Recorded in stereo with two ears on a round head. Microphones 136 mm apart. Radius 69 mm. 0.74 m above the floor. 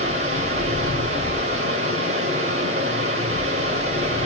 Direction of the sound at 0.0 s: 50° right (ahead or behind).